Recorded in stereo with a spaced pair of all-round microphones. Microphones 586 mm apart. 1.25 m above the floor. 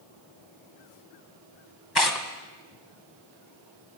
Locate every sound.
1.9 s tearing paper: 40° left (ahead or behind), 2 m